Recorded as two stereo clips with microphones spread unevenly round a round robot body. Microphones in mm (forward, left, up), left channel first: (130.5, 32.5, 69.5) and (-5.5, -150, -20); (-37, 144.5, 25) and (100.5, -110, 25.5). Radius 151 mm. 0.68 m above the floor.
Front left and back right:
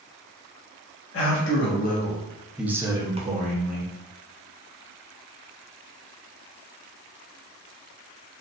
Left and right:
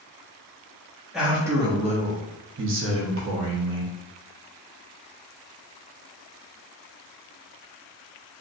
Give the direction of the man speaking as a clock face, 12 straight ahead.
11 o'clock.